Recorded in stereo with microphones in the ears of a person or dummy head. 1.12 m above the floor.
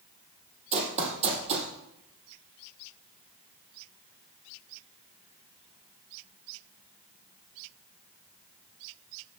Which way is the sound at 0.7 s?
30° right (ahead or behind).